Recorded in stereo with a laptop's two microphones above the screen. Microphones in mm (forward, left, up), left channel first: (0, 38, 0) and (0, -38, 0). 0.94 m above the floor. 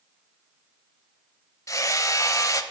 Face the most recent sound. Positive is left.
turn(degrees=45)  # may be behind; listen again after turning